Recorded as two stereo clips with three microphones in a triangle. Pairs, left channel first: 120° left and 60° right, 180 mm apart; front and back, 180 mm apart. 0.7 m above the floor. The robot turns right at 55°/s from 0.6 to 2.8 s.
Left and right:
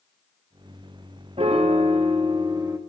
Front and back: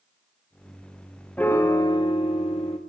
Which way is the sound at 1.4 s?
75° right.